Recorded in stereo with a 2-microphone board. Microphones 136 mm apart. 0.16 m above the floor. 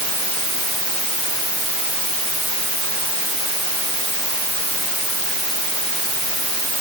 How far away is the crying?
No crying in this recording.